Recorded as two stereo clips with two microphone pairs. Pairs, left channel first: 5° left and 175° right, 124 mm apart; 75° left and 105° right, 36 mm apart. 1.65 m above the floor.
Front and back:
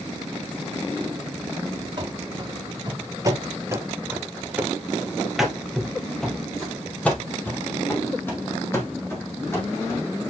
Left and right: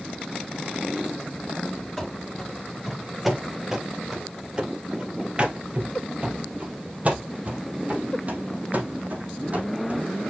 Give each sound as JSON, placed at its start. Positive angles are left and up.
{"t": 2.0, "sound": "running footsteps", "azimuth_deg": 160, "distance_m": 2.0}